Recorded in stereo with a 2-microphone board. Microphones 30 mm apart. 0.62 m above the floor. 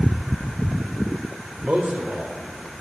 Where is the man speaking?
50° right (ahead or behind), 2.5 m.